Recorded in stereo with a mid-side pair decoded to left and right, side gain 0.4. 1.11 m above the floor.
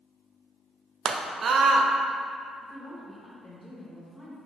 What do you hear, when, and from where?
1.1 s a scream: 55° right, 0.6 m
2.6 s a woman speaking: 15° left, 1.0 m